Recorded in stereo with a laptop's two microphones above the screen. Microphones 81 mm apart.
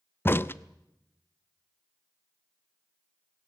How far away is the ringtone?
No ringtone in this recording.